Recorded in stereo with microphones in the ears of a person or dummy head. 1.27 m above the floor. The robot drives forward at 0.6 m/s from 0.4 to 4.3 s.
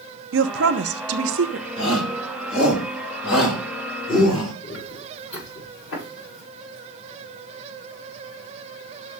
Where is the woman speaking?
75° right (ahead or behind), 1.1 m; by 1.7 s 60° right (ahead or behind), 1.2 m.